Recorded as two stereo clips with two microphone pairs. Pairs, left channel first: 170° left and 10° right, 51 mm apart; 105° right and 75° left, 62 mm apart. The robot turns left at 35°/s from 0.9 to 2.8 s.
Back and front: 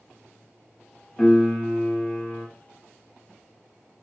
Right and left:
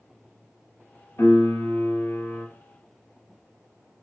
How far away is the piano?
About 0.9 m.